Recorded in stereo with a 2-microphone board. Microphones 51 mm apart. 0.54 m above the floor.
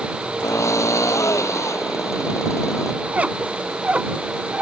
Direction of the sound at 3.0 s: 25° right (ahead or behind).